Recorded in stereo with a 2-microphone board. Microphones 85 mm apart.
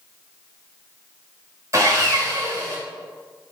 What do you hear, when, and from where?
1.7 s sawing: 40° right (ahead or behind), 1.2 m